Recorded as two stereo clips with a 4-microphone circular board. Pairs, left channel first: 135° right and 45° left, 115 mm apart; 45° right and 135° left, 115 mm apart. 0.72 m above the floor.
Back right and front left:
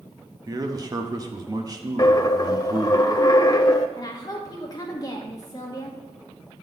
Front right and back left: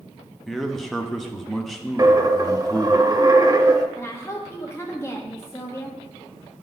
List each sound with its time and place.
0.5 s a man speaking: 45° left, 0.7 m
2.0 s a dropped coin: straight behind, 0.6 m
4.0 s a woman speaking: 100° right, 0.9 m